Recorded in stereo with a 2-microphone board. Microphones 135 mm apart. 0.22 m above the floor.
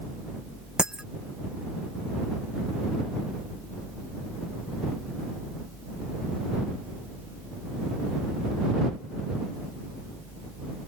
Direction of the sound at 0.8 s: 5° right (ahead or behind).